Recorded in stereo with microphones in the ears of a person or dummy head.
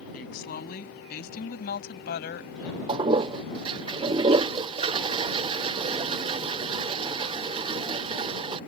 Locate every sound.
0.1 s a woman speaking: 50° left (ahead or behind); by 2.8 s 55° left (ahead or behind)
2.9 s a toilet flushing: 30° right (ahead or behind)